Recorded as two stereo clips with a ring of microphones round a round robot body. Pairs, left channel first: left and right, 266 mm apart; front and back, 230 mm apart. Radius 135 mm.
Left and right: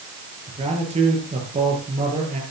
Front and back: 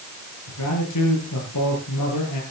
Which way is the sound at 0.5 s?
20° right.